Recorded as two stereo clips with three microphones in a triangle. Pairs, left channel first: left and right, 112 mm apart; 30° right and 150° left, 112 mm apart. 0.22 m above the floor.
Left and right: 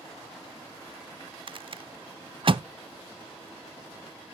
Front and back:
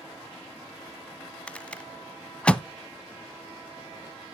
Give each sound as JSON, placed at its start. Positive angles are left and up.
{"t": 1.5, "sound": "a rattle", "azimuth_deg": -110, "distance_m": 0.5}